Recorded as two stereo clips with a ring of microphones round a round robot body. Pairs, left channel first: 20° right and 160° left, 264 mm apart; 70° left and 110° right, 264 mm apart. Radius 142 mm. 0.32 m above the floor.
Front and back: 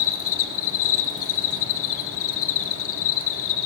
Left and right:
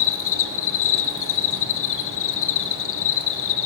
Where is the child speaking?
No child speaking in this recording.